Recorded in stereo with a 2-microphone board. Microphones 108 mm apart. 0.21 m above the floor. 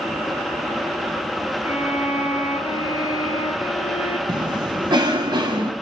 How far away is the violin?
About 1.7 m.